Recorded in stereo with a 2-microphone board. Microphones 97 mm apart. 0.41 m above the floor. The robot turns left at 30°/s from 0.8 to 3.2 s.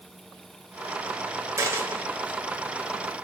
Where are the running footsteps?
No running footsteps in this recording.